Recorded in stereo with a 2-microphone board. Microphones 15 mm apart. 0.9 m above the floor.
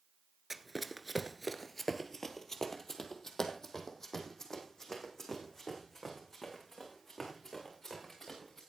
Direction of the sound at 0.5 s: 10° right (ahead or behind).